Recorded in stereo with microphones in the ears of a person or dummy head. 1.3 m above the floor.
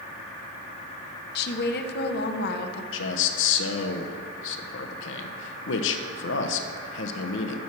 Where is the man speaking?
70° left (ahead or behind), 1.0 m.